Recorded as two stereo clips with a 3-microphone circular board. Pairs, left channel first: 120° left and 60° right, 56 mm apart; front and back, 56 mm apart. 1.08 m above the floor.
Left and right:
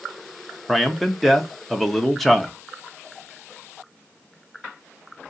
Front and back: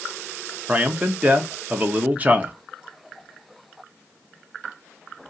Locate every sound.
0.7 s a man speaking: 155° right, 0.7 m